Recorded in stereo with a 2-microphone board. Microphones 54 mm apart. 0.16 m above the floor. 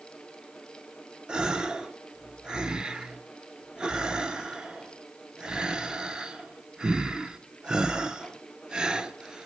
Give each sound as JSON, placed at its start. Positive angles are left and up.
{"t": 1.3, "sound": "a gasp", "side_deg": -20, "distance_m": 0.5}